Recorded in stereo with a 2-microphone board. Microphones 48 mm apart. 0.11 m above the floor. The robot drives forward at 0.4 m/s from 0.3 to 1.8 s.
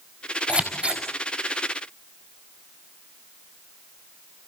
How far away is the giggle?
I don't hear a giggle.